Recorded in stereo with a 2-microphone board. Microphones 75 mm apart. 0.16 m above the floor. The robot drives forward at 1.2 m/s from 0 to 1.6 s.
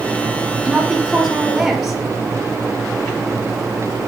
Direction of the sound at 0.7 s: Centre (ahead or behind).